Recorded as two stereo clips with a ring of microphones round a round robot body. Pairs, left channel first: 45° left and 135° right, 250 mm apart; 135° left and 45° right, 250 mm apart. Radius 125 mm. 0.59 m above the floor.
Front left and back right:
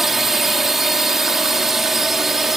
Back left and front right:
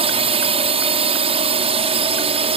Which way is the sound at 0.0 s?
50° right.